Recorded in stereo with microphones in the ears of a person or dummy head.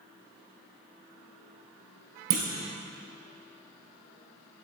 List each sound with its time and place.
2.3 s a clunk: 40° right (ahead or behind), 1.0 m